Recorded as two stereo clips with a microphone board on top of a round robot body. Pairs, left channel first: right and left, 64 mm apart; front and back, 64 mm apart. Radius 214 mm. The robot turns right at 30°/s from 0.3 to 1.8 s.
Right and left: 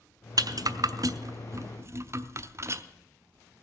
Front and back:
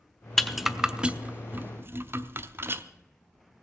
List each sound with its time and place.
0.4 s a rattle: 85° left, 0.8 m; by 2.8 s 130° left, 0.8 m